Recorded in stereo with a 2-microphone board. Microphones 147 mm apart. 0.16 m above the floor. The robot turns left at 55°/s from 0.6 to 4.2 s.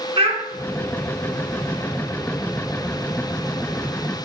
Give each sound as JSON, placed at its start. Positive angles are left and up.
{"t": 0.2, "sound": "a child speaking", "side_deg": -40, "distance_m": 0.9}